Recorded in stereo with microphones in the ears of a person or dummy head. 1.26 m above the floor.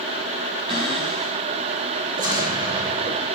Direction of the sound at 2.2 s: 20° right (ahead or behind).